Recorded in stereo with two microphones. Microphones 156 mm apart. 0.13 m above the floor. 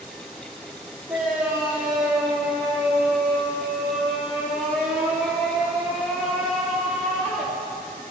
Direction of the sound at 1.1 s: 10° right (ahead or behind).